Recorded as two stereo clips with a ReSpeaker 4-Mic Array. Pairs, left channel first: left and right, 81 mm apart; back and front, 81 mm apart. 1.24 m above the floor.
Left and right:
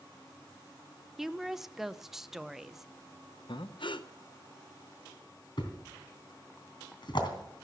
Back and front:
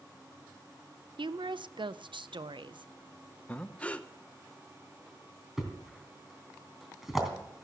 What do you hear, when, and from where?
1.2 s a woman speaking: 5° right, 0.6 m
3.5 s breathing: 105° left, 0.6 m
5.6 s a thud: 85° left, 3 m